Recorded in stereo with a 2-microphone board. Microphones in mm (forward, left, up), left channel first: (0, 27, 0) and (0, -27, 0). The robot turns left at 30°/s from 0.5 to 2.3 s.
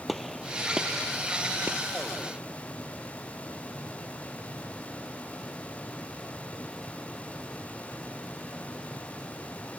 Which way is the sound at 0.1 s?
Centre (ahead or behind).